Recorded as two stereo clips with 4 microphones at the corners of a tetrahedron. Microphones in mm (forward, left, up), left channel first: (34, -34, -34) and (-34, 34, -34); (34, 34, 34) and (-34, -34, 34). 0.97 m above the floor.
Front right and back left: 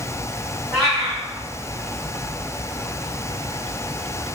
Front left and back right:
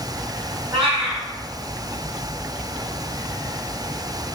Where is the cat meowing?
130° right, 1.9 m.